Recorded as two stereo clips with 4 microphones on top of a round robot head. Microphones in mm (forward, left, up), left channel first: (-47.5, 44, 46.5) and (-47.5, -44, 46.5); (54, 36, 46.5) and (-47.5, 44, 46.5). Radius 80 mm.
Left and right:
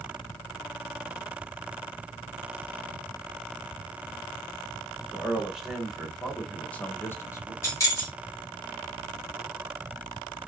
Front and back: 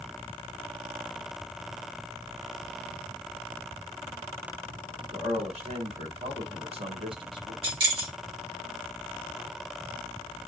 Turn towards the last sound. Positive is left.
turn(degrees=145)